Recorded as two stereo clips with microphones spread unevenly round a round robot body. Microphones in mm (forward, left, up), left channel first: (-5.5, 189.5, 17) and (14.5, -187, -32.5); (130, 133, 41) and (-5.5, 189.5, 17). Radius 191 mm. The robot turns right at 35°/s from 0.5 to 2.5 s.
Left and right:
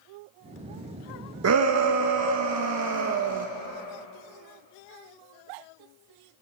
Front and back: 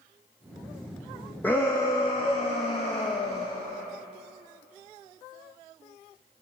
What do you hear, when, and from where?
1.4 s a shout: 110° right, 0.7 m; by 3.5 s 75° right, 0.7 m